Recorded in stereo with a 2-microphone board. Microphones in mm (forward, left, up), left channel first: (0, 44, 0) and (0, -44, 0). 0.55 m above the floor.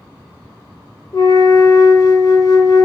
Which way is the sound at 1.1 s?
40° left (ahead or behind).